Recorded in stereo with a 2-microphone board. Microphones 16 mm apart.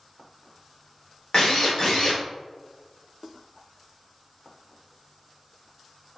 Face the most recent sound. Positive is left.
turn(degrees=40)  # may be behind; listen again after turning